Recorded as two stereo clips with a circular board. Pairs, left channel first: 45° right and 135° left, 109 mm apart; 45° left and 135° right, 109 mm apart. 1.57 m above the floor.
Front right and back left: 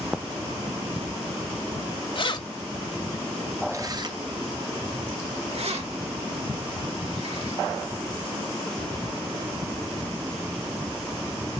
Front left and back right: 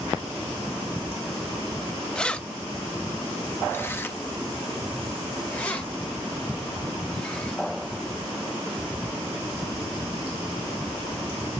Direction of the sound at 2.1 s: 35° right.